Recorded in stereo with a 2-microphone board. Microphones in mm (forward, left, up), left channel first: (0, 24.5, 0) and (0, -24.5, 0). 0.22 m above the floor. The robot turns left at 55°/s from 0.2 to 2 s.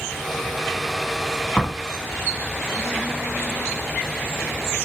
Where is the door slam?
20° left (ahead or behind), 1.1 m; by 1.8 s 10° left (ahead or behind), 1.1 m.